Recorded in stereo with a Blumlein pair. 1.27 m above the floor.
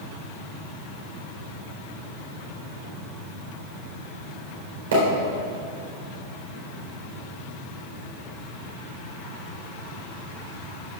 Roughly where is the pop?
Ahead right.